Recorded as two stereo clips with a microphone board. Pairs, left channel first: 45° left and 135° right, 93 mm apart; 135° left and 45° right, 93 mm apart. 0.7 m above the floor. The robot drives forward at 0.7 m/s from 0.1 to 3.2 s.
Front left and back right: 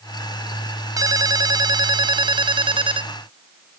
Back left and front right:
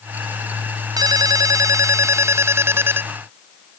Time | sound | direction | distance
1.0 | a ringtone | 90° right | ?